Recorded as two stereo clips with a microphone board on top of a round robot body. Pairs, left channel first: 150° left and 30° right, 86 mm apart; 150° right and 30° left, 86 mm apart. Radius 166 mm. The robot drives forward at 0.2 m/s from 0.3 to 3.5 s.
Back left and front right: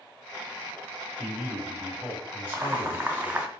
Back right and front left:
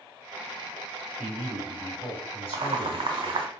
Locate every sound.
1.2 s a man speaking: 130° right, 1.2 m; by 3.4 s 140° right, 1.5 m
2.5 s boiling: 30° left, 0.6 m; by 3.5 s 45° left, 0.5 m